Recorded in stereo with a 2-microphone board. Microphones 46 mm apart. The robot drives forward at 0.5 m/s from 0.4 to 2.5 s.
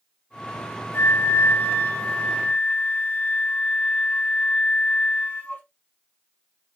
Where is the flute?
55° left (ahead or behind), 0.6 m; by 5.6 s 30° left (ahead or behind), 1.0 m.